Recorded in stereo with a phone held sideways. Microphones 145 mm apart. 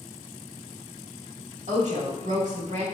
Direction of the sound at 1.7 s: 55° right (ahead or behind).